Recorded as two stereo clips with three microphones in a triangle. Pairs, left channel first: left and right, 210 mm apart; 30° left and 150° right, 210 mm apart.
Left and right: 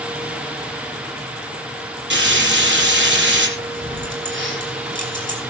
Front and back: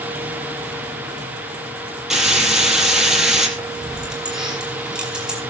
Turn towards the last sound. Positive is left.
turn(degrees=-65)